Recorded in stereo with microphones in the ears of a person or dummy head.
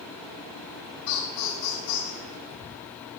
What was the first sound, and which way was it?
Laughter, 60° left (ahead or behind).